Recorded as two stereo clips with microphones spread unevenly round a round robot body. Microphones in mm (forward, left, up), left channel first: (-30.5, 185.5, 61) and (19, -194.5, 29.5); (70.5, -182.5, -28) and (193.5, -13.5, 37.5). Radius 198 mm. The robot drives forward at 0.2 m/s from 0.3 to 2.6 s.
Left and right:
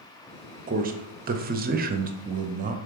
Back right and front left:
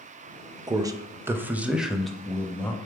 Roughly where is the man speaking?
Ahead right.